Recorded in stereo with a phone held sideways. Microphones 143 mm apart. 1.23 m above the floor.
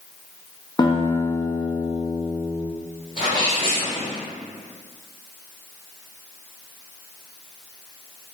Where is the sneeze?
80° left, 1.8 m.